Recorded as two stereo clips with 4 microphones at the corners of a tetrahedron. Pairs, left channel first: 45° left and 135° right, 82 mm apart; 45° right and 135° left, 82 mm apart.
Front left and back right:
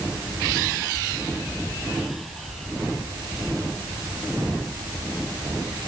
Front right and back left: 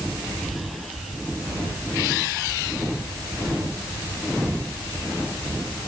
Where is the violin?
I don't hear a violin.